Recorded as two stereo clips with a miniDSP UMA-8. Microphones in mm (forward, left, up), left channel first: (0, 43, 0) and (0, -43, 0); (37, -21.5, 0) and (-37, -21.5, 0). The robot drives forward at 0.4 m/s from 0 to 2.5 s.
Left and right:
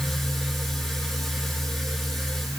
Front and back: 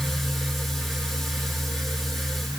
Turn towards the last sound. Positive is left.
No sound to turn to.